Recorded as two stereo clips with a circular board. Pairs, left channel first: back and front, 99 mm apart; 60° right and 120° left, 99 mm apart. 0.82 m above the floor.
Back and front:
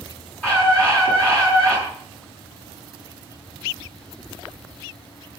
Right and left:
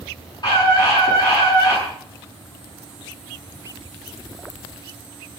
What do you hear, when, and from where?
0.4 s a scream: 105° right, 8 m